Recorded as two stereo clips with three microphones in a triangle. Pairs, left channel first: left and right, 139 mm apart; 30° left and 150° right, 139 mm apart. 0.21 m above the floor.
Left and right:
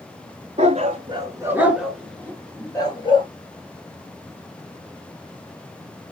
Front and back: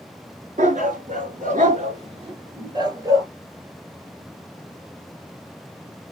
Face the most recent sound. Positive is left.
turn(degrees=145)